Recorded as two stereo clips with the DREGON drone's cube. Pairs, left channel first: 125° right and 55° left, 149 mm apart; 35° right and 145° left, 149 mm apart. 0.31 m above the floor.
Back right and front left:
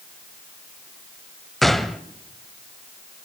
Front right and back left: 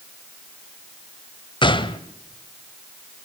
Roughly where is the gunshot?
Ahead right.